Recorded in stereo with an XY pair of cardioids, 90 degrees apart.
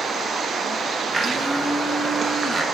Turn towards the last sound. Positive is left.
turn(degrees=-25)